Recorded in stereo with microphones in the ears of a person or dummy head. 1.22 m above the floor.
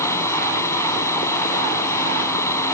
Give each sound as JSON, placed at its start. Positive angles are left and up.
{"t": 0.0, "sound": "a fan", "side_deg": 15}